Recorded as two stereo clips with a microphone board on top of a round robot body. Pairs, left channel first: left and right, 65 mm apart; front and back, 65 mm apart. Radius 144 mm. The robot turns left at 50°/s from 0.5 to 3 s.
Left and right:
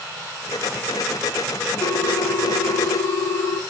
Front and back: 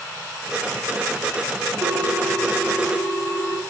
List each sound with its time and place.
1.8 s a ringtone: 110° left, 1.5 m; by 3.6 s 50° left, 1.5 m